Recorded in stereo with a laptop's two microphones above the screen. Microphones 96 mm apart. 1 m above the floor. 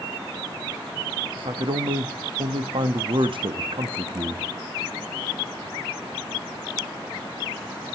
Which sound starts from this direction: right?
A man speaking, at 1.4 s.